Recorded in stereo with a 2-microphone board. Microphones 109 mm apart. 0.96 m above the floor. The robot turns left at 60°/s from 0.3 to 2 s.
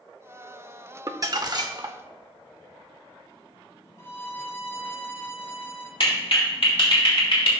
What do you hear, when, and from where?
1.1 s crumpling: 55° right, 0.7 m; by 2.0 s 110° right, 0.7 m
4.0 s a violin: 25° left (ahead or behind), 0.8 m
6.0 s a clap: 60° left (ahead or behind), 1.9 m